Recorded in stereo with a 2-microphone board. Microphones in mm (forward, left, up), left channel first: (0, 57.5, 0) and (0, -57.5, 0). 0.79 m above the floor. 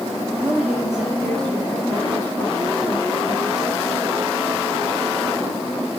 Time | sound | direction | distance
0.4 | a woman speaking | 20° right (ahead or behind) | 1.6 m